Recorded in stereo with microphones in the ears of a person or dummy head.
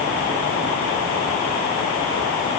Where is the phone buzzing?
I don't hear a phone buzzing.